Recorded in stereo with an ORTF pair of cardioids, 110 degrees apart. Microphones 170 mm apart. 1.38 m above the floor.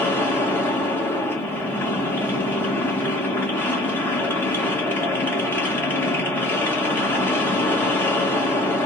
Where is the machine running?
10° left, 1.9 m.